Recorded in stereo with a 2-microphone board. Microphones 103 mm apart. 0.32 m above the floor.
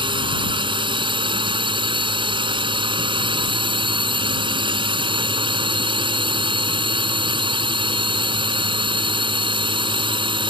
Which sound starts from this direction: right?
A drone, at 0.0 s.